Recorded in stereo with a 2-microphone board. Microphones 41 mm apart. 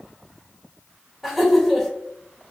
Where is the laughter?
Centre (ahead or behind), 1.9 m.